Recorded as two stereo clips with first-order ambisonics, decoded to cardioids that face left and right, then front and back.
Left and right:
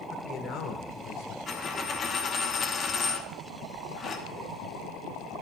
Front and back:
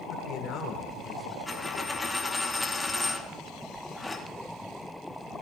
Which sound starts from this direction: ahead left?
A man speaking, at 0.1 s.